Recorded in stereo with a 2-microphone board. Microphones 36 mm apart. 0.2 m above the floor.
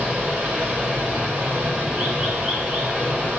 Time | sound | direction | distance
0.0 | running water | 25° right (ahead or behind) | 8.5 m